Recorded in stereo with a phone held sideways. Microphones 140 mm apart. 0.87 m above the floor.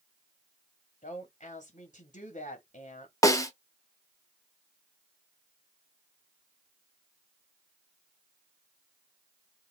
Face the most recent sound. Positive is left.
turn(degrees=25)  # may be behind; listen again after turning